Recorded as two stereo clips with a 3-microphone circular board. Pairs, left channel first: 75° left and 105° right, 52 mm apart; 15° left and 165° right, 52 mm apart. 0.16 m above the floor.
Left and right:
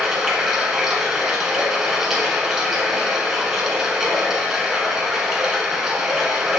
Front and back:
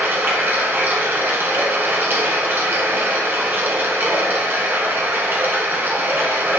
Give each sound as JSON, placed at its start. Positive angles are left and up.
{"t": 0.0, "sound": "running water", "azimuth_deg": 180, "distance_m": 1.4}